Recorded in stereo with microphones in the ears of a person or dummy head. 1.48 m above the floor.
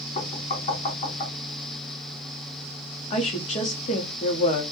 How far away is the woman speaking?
About 0.8 m.